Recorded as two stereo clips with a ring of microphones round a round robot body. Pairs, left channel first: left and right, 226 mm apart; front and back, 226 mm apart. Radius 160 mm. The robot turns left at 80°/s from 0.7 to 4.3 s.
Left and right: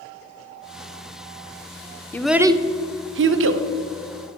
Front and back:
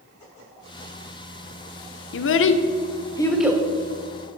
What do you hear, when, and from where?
2.1 s a child speaking: 10° left, 0.7 m; by 3.6 s 110° right, 0.7 m